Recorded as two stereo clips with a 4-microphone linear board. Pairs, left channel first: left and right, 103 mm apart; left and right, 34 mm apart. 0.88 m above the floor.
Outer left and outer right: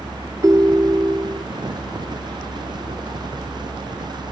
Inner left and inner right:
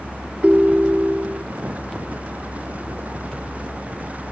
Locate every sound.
0.4 s a ringtone: 35° right (ahead or behind)